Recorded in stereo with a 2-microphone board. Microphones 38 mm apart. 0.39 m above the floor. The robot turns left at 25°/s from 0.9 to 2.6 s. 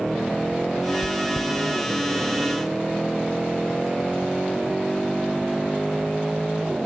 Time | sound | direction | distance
1.0 | chewing | centre (ahead or behind) | 1.0 m